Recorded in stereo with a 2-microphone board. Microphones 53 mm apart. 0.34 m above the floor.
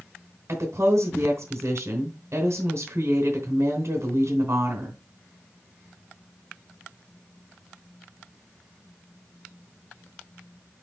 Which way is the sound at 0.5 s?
60° right (ahead or behind).